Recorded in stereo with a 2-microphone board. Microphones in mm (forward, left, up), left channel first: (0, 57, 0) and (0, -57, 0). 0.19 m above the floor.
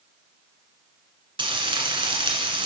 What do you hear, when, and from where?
1.4 s frying: 50° right (ahead or behind), 1.8 m